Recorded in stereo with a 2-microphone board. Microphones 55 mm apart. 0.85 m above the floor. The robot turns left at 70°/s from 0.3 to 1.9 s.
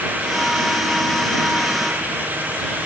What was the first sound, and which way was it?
Only background noise.